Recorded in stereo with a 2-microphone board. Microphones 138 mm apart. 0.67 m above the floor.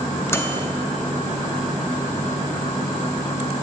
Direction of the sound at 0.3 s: 20° left (ahead or behind).